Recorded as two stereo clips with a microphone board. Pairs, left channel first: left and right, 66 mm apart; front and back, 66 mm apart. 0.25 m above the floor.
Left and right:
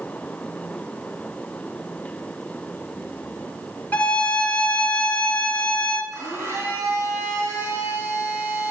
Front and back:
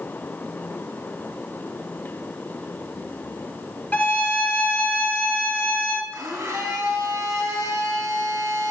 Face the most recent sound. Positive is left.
turn(degrees=-140)